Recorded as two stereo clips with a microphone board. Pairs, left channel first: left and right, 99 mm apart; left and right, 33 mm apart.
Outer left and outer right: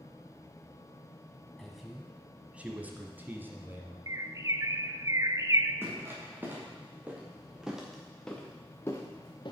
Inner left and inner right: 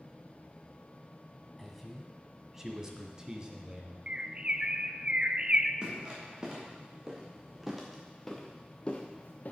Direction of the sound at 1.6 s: Centre (ahead or behind).